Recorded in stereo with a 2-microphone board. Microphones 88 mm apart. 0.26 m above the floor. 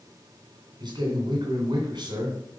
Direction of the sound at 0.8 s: 60° right (ahead or behind).